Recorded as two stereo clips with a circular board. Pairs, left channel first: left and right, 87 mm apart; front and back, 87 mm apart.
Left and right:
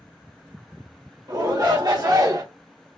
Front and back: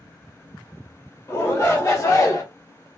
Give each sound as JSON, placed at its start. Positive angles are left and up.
{"t": 1.3, "sound": "a shout", "azimuth_deg": -55, "distance_m": 1.9}